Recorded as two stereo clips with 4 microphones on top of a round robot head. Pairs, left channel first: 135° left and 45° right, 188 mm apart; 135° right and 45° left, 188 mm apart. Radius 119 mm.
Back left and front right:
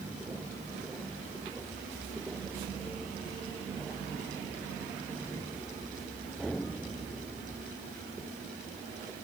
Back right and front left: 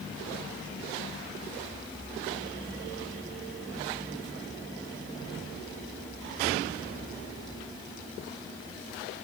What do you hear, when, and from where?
Only background noise.